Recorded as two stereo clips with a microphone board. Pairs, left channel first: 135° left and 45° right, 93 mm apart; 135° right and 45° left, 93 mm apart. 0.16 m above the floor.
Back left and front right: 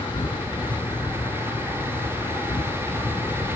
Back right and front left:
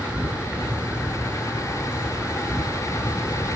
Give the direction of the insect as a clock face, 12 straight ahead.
8 o'clock.